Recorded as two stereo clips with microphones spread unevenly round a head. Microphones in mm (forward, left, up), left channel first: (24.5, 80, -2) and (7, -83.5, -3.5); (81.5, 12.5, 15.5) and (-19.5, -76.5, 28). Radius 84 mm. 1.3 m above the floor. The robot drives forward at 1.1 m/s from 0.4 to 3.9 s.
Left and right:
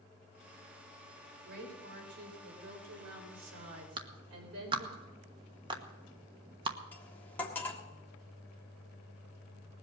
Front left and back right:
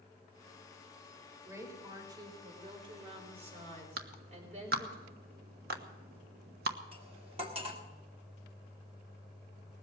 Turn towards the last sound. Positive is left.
turn(degrees=165)